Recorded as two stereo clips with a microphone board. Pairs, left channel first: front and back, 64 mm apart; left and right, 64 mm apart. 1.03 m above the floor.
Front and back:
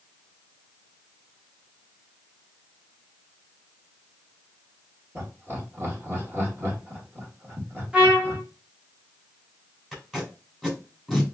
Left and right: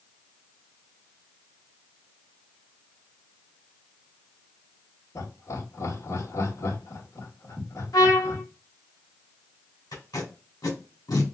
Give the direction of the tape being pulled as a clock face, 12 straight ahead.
9 o'clock.